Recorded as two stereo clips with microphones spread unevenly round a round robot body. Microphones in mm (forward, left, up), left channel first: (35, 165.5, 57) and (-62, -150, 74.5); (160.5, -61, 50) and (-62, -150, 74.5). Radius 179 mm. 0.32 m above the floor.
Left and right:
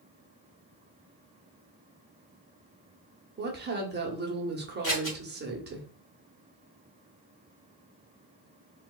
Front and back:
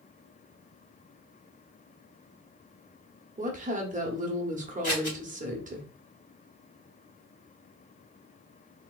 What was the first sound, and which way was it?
A woman speaking, 130° right.